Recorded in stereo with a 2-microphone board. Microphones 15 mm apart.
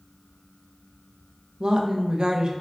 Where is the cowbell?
No cowbell in this recording.